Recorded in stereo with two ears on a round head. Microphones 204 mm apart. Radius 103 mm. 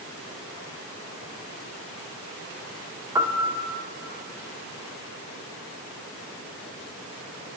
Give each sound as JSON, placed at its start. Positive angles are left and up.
{"t": 3.1, "sound": "a piano", "side_deg": -10, "distance_m": 0.8}